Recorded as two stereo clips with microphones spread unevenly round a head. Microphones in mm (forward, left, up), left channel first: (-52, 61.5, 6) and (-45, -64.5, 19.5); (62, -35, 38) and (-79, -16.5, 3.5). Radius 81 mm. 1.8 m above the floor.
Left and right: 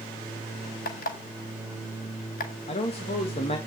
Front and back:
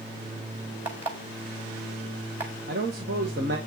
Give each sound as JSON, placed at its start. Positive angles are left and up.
{"t": 0.8, "sound": "an alarm clock", "azimuth_deg": 90, "distance_m": 4.5}
{"t": 2.7, "sound": "a man speaking", "azimuth_deg": 135, "distance_m": 2.0}